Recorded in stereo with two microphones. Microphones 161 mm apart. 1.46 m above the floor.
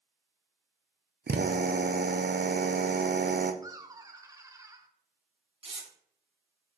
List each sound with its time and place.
1.3 s a drill: 80° right, 0.6 m
3.6 s laughter: 20° right (ahead or behind), 1.0 m
5.6 s tearing paper: 35° right (ahead or behind), 1.4 m